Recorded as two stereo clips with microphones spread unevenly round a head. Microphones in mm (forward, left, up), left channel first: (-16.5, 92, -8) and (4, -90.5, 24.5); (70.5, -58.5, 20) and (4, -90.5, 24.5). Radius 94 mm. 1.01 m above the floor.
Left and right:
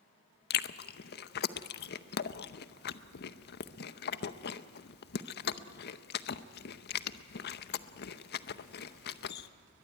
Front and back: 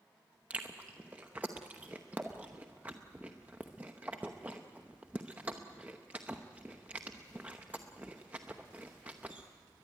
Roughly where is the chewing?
Behind left.